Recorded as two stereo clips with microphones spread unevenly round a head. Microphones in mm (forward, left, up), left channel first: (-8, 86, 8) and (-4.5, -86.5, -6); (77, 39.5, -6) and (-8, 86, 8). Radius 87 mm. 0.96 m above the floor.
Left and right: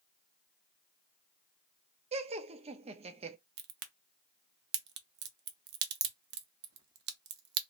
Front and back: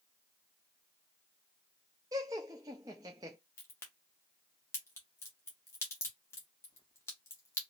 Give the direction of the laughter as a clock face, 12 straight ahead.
5 o'clock.